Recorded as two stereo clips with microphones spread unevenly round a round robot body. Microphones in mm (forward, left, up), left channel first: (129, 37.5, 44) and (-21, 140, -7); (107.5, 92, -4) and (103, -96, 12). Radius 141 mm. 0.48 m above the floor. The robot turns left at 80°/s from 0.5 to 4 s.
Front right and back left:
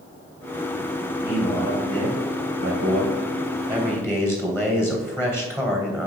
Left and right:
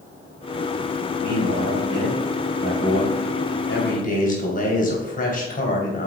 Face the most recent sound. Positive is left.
turn(degrees=50)